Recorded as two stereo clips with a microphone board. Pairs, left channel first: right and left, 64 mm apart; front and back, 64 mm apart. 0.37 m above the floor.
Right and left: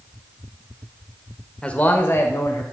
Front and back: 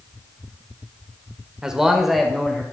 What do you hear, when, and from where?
1.6 s a man speaking: 125° right, 1.1 m; by 2.6 s 85° right, 1.7 m